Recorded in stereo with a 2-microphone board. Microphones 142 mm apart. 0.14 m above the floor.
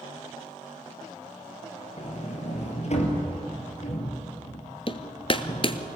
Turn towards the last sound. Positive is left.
turn(degrees=40)  # may be behind; listen again after turning